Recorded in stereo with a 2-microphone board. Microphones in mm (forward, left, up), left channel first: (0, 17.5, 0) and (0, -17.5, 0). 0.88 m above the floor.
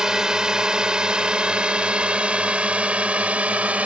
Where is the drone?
20° right (ahead or behind); by 3.9 s 45° right (ahead or behind).